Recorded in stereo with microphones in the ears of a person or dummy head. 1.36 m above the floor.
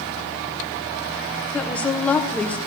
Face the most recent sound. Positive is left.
turn(degrees=5)  # may be behind; listen again after turning